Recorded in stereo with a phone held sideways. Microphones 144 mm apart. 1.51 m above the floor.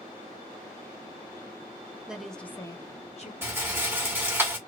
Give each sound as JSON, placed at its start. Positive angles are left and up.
{"t": 2.1, "sound": "a woman speaking", "side_deg": -5, "distance_m": 0.9}
{"t": 3.4, "sound": "a rattle", "side_deg": -15, "distance_m": 1.4}